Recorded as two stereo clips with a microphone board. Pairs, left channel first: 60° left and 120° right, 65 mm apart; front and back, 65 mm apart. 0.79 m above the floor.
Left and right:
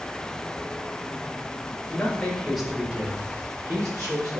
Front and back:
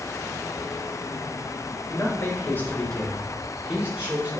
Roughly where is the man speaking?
Ahead.